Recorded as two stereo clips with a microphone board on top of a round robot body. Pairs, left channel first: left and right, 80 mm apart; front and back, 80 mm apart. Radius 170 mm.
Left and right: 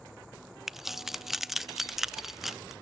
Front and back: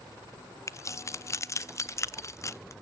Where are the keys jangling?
5° right, 0.6 m.